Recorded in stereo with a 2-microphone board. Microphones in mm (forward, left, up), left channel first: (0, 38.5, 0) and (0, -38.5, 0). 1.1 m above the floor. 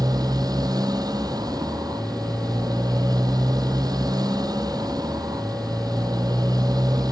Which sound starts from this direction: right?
A motorcycle, at 0.0 s.